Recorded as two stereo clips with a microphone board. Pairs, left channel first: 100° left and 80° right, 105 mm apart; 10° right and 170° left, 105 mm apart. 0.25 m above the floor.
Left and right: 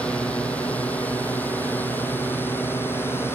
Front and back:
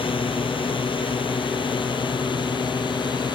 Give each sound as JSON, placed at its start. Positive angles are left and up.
{"t": 0.0, "sound": "a drone", "azimuth_deg": 20}